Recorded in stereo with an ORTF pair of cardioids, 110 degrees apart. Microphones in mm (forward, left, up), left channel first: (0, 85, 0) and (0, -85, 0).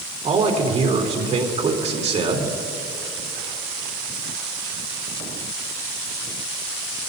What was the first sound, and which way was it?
A man speaking, 45° right.